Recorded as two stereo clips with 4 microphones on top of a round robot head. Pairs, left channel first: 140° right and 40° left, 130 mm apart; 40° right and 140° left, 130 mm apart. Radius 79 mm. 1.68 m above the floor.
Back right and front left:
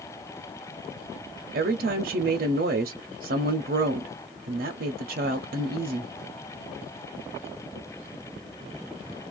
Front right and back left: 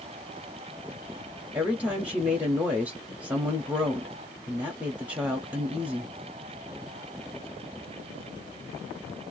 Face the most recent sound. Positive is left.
turn(degrees=55)